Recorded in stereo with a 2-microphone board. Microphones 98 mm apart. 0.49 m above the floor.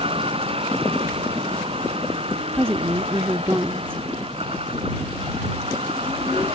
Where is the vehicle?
75° right (ahead or behind); by 6.6 s 90° right.